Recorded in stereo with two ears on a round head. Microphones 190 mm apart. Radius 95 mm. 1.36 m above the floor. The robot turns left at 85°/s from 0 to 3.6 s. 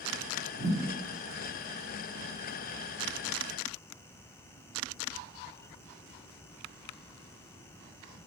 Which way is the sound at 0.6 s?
30° right (ahead or behind).